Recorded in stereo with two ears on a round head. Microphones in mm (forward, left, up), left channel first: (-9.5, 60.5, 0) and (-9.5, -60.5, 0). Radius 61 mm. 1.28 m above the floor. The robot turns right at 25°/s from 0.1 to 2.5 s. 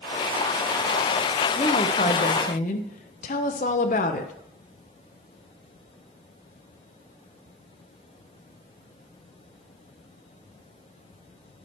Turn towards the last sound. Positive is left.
turn(degrees=55)  # may be behind; listen again after turning